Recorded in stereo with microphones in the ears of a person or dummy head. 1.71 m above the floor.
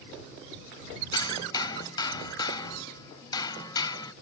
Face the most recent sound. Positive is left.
turn(degrees=25)  # may be behind; listen again after turning